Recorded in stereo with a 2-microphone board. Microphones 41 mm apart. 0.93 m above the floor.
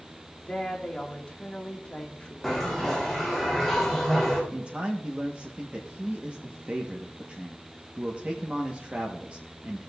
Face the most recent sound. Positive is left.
turn(degrees=-35)  # may be behind; listen again after turning